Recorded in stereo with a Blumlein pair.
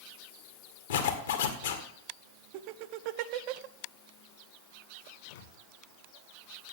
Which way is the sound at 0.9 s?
65° left.